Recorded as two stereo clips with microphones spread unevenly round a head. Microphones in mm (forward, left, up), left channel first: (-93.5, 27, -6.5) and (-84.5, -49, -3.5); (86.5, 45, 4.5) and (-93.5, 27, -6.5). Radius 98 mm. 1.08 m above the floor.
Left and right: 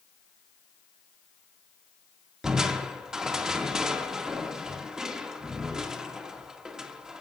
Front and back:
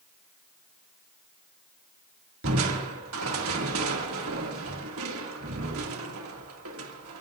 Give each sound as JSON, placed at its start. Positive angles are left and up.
{"t": 2.4, "sound": "crushing", "azimuth_deg": -165, "distance_m": 2.0}